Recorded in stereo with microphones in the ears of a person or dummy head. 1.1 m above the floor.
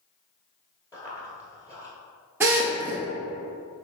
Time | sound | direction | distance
0.9 | running footsteps | 20° left (ahead or behind) | 1.3 m
2.4 | a drill | 15° right (ahead or behind) | 0.6 m